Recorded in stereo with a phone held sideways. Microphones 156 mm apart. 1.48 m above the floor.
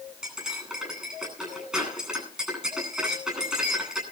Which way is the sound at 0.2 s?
5° right (ahead or behind).